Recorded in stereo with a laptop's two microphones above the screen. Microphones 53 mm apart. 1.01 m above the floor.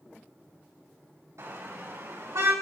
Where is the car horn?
75° right (ahead or behind), 3.5 m; by 2.5 s 80° right, 5.5 m.